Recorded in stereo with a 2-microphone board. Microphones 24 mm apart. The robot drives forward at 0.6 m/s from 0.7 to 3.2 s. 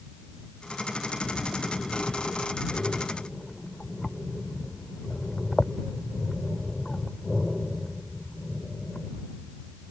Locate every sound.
1.2 s breathing: 75° left (ahead or behind); by 9.1 s 30° left (ahead or behind)